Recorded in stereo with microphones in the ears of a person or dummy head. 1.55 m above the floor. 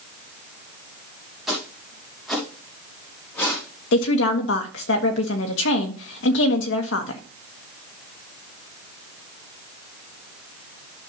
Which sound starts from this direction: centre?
Footsteps, at 1.5 s.